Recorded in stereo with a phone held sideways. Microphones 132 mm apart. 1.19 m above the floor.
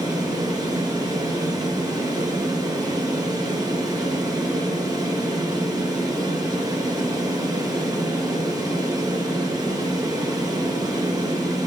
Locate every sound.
0.0 s a fan: 30° right (ahead or behind), 0.8 m